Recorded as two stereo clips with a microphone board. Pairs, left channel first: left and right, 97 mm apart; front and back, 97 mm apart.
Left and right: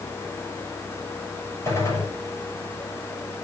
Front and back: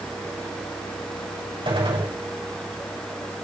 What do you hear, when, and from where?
1.6 s a gunshot: 155° left, 6.5 m